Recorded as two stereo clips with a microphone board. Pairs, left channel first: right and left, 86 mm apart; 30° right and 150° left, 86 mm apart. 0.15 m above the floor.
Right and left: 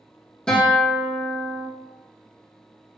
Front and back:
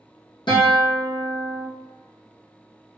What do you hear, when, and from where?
0.5 s a guitar: 10° right, 1.8 m